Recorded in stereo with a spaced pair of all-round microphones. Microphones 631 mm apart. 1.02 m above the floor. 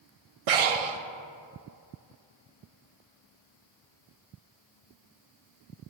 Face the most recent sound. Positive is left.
turn(degrees=-65)  # may be behind; listen again after turning